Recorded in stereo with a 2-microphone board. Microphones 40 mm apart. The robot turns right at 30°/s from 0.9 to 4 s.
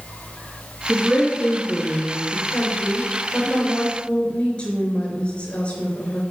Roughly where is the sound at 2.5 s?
Left.